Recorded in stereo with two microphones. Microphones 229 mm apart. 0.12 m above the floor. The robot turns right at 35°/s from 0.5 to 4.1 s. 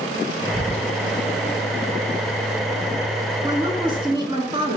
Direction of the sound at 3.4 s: 20° right (ahead or behind).